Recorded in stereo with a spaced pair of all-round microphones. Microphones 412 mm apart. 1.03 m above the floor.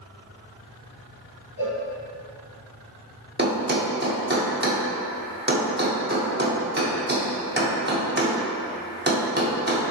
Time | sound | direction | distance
1.6 | a cowbell | 70° left (ahead or behind) | 1.2 m
3.4 | a thud | 25° right (ahead or behind) | 0.7 m